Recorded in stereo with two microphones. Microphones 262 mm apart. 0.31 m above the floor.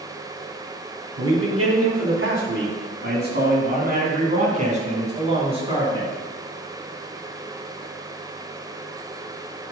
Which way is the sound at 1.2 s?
60° right (ahead or behind).